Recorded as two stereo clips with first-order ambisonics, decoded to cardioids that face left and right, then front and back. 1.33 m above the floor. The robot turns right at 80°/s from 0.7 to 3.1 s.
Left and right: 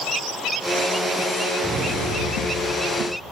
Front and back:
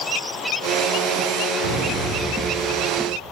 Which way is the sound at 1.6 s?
Straight behind.